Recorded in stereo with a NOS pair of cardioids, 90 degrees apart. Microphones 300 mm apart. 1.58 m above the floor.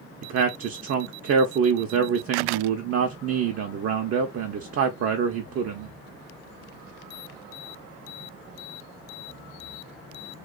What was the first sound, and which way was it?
A man speaking, 50° right.